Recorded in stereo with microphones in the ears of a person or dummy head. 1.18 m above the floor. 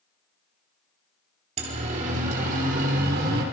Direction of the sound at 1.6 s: 45° right (ahead or behind).